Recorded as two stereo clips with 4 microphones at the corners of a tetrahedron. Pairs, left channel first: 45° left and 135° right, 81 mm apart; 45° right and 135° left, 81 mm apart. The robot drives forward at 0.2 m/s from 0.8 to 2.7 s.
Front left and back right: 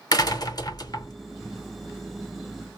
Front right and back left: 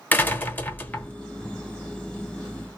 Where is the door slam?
20° left, 0.8 m.